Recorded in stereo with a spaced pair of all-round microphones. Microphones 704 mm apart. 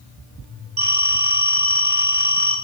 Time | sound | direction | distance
0.8 | a phone ringing | 85° right | 2.5 m